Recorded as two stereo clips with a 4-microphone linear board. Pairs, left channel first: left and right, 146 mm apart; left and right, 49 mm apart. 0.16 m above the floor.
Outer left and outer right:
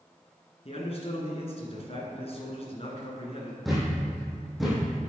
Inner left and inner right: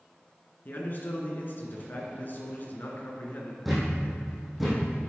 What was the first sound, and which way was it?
A man speaking, 45° left (ahead or behind).